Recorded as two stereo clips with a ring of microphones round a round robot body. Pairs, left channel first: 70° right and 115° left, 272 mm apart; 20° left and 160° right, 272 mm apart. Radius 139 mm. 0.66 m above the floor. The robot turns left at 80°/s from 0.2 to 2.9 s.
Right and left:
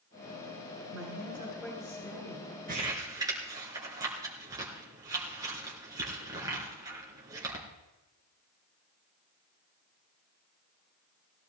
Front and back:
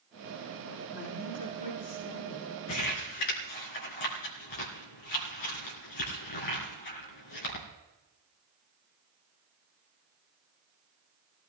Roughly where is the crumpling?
Ahead left.